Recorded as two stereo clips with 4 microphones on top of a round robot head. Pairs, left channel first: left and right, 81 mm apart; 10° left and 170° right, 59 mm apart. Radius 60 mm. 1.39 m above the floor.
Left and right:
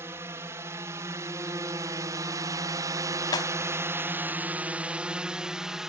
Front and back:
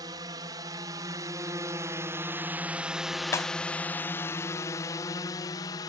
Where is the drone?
155° right; by 5.9 s 5° right.